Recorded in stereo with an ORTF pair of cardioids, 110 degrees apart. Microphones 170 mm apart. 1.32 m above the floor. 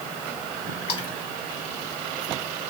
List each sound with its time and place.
0.9 s a splash: 30° left, 1.3 m